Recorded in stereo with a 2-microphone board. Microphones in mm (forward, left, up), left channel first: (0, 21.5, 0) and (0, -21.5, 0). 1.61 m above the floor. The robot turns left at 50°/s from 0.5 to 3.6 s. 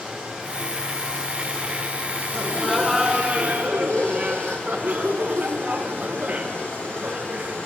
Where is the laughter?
25° left, 1.4 m; by 7.6 s 40° right, 1.4 m.